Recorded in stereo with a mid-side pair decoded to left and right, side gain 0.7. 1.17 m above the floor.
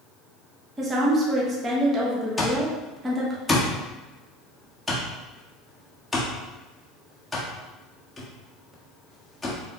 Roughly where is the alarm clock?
Ahead.